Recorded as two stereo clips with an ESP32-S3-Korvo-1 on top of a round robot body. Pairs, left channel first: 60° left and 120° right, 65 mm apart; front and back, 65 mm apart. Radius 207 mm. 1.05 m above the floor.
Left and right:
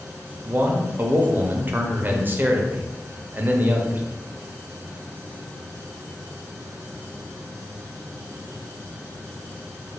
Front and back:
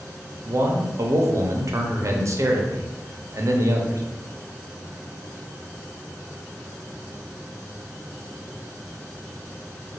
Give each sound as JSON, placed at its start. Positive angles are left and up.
{"t": 0.5, "sound": "a man speaking", "azimuth_deg": -170, "distance_m": 0.8}